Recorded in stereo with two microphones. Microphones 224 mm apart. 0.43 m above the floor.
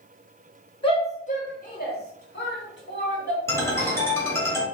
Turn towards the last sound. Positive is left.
turn(degrees=10)  # may be behind; listen again after turning